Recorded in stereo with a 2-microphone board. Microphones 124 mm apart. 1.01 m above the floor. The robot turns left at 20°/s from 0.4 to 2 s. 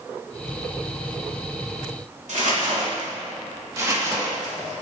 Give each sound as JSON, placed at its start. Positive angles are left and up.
{"t": 2.3, "sound": "crumpling", "side_deg": -70, "distance_m": 2.5}
{"t": 3.8, "sound": "crumpling", "side_deg": -25, "distance_m": 1.8}